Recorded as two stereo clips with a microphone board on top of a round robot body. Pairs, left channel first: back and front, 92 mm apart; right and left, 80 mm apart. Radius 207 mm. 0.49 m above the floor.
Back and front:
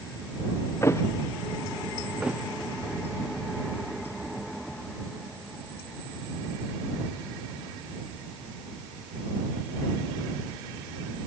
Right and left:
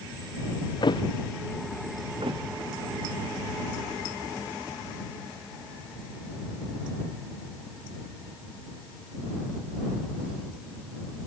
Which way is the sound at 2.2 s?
80° left.